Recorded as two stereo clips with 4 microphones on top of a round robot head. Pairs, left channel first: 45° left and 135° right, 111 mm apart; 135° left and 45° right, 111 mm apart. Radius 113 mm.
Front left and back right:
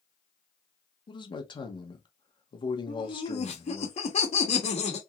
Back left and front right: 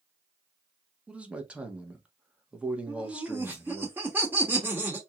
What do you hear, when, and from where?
1.1 s a man speaking: 30° left, 1.2 m
2.9 s laughter: 30° left, 1.4 m